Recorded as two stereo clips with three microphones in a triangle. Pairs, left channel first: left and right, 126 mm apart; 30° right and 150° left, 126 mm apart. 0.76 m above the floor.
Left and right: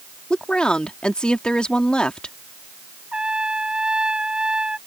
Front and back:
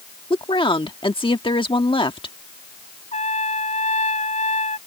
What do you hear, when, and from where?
0.3 s a woman speaking: 10° left
3.1 s a trumpet: 5° right